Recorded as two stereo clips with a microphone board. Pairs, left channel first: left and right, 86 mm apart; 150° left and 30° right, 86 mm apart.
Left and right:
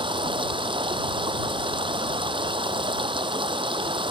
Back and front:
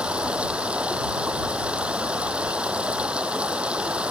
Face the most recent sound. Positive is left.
turn(degrees=-105)